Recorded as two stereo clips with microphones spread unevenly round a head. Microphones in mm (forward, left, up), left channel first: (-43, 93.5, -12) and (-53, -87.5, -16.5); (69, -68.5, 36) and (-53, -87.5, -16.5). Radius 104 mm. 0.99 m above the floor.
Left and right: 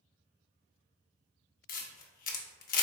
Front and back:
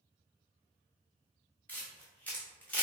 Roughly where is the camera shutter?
Ahead left.